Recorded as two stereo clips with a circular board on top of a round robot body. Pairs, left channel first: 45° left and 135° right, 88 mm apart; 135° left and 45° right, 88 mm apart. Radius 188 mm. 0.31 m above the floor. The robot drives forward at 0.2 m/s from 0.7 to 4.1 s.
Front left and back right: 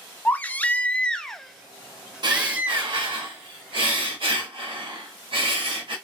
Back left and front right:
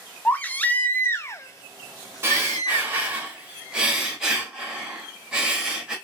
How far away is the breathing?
About 0.9 m.